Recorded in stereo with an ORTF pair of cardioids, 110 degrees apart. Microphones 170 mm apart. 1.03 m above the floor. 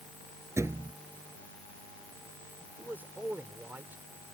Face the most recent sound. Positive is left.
turn(degrees=-10)